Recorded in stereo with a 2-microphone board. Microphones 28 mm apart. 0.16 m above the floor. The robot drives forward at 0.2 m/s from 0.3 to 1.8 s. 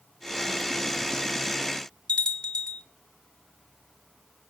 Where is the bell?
45° left (ahead or behind), 2.5 m.